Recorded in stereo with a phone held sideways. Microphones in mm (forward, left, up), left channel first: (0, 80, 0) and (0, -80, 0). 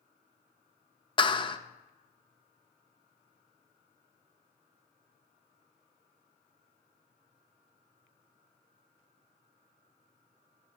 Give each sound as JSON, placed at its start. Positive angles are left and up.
{"t": 1.2, "sound": "a clap", "side_deg": 30, "distance_m": 0.6}